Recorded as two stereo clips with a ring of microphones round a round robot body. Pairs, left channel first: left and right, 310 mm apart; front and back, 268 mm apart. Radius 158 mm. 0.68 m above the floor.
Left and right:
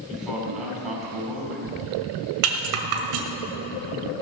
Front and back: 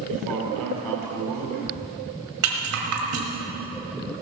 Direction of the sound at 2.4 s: 130° right.